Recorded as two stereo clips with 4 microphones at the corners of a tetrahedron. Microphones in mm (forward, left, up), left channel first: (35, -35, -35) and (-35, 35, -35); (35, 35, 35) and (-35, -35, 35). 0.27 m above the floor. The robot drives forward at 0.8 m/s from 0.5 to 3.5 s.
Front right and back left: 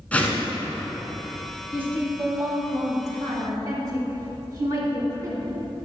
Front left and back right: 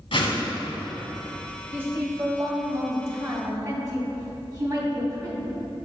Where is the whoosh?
30° left, 1.7 m.